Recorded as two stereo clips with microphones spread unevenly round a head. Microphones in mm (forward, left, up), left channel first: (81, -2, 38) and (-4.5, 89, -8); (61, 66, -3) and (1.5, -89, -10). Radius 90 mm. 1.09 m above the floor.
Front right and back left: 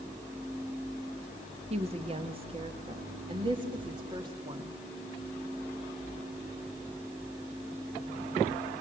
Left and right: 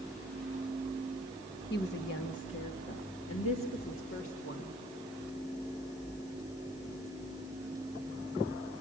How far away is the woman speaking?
About 1.5 m.